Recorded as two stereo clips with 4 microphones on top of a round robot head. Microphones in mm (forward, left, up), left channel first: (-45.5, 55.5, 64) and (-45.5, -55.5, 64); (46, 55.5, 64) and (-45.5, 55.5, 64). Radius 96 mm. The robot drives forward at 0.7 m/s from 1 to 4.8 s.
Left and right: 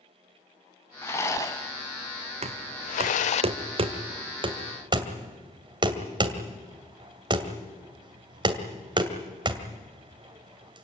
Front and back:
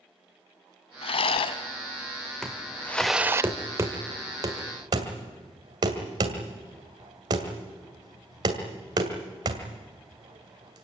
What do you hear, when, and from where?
1.0 s a rattle: 15° left, 1.5 m; by 3.4 s 120° left, 0.5 m
2.4 s knocking: 85° right, 1.8 m; by 10.8 s 135° right, 2.5 m